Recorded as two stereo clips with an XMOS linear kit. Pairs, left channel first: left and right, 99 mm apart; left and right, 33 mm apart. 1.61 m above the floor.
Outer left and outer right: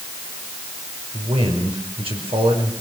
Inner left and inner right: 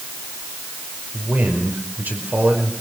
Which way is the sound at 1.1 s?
85° right.